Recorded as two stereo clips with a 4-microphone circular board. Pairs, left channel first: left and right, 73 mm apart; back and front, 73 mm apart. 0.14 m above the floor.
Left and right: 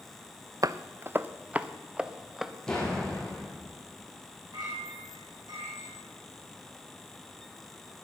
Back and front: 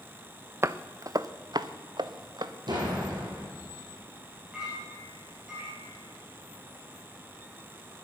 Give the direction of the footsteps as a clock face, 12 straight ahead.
2 o'clock.